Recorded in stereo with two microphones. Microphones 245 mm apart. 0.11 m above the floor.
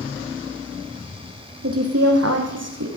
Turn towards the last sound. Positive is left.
turn(degrees=-75)  # may be behind; listen again after turning